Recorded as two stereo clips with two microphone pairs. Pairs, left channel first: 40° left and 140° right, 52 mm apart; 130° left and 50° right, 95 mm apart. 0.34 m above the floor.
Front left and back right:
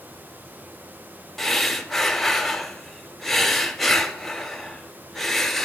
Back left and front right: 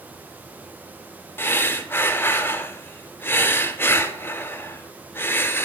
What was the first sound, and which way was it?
Breathing, 120° left.